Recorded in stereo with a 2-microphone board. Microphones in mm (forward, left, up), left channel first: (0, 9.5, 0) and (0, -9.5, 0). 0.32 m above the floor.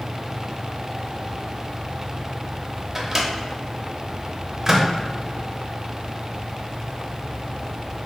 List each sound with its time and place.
3.0 s a microwave: 20° right (ahead or behind), 0.7 m